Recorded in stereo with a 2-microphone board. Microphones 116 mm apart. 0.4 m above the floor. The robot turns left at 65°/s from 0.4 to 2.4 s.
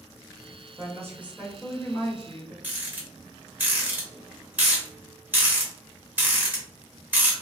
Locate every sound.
0.8 s a woman speaking: 130° right, 1.2 m; by 2.5 s 120° left, 1.2 m
2.6 s a rattle: 15° right (ahead or behind), 1.1 m